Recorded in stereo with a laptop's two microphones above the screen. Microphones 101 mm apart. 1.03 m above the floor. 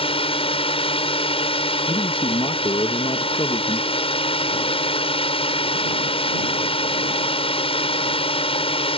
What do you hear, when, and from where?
0.0 s a drone: 65° left (ahead or behind)
1.9 s a man speaking: 50° left (ahead or behind)